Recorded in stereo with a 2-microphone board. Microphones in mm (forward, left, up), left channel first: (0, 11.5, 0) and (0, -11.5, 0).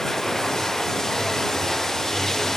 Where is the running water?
20° left (ahead or behind).